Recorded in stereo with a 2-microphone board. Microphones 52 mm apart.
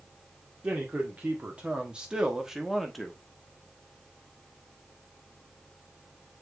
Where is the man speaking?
30° right (ahead or behind), 1.8 m; by 3.2 s 5° left (ahead or behind), 1.4 m.